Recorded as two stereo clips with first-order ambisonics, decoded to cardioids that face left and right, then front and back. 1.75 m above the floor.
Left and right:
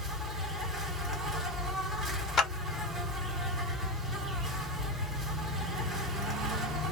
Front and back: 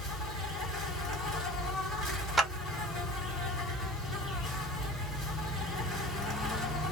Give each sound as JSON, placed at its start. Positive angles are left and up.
{"t": 0.0, "sound": "an insect", "azimuth_deg": -35, "distance_m": 1.9}
{"t": 2.4, "sound": "a clap", "azimuth_deg": 100, "distance_m": 0.8}